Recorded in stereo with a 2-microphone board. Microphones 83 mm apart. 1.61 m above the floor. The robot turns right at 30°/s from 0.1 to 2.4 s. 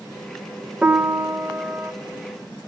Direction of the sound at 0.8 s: 20° right (ahead or behind).